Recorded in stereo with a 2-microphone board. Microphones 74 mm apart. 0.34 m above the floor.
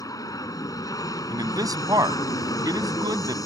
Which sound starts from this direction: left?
An aircraft, at 0.0 s.